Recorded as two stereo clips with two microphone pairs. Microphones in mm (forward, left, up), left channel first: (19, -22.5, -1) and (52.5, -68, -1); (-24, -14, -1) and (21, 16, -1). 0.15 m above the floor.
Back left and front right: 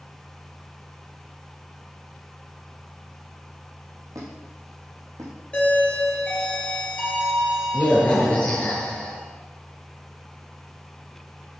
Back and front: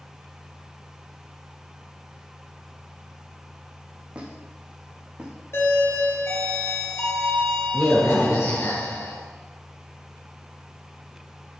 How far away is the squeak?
About 3 m.